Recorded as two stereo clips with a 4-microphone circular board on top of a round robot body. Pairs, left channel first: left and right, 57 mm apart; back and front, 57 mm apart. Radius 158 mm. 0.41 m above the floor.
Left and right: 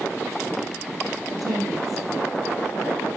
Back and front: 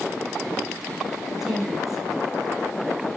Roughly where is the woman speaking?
Right.